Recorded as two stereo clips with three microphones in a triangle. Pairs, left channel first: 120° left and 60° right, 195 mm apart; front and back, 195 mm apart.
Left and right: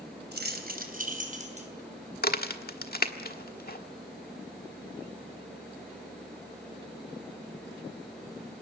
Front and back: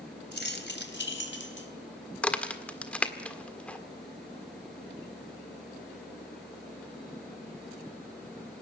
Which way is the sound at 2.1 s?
85° left.